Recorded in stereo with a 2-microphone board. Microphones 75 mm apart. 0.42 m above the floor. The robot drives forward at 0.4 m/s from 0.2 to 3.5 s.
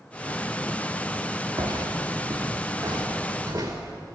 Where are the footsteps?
65° right (ahead or behind), 2.5 m; by 3.9 s 35° right (ahead or behind), 4 m.